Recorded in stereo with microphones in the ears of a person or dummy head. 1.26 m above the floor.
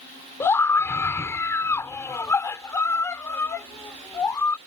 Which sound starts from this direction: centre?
A scream, at 0.4 s.